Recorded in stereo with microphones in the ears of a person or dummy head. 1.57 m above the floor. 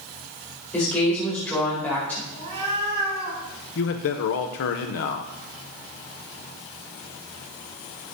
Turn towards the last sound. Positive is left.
turn(degrees=45)  # may be behind; listen again after turning